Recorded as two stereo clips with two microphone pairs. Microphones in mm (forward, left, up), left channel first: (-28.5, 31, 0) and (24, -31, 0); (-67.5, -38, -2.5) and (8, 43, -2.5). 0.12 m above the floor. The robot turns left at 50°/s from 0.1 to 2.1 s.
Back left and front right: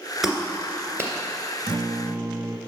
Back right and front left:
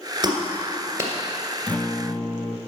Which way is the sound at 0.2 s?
35° left.